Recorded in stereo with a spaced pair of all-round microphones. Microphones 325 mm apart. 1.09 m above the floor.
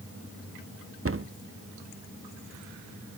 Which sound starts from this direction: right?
A cupboard door, at 1.1 s.